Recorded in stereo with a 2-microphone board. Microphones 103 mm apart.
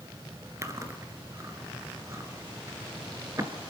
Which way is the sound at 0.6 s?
30° right (ahead or behind).